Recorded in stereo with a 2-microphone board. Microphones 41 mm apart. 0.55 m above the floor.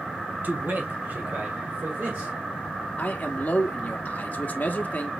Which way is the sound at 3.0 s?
45° left (ahead or behind).